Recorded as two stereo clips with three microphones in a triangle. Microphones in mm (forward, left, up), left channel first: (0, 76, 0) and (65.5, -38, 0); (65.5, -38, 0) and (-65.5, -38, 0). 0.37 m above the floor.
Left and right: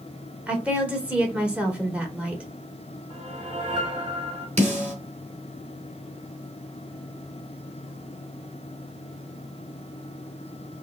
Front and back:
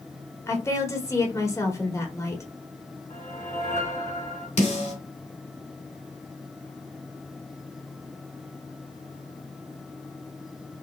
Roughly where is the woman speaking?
Ahead.